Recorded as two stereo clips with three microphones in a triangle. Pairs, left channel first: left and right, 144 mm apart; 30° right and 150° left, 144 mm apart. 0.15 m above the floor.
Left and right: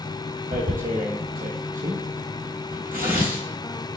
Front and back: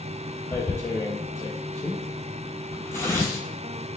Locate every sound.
0.5 s tearing paper: 105° right, 0.9 m